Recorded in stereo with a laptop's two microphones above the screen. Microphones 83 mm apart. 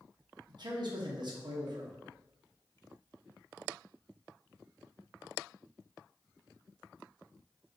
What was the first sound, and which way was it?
A man speaking, 60° right (ahead or behind).